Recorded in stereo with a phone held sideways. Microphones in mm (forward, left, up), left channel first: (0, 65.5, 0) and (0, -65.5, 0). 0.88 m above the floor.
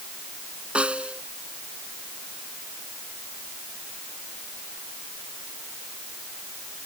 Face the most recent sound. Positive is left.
turn(degrees=-10)  # may be behind; listen again after turning